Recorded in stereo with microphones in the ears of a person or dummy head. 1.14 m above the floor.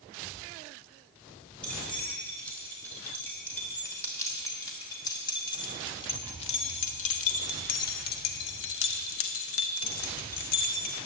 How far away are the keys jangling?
About 4.5 m.